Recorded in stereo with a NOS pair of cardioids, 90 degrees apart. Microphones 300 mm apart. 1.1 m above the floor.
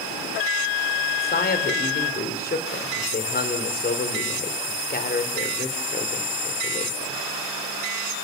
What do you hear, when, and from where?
1.2 s a man speaking: 30° left, 4 m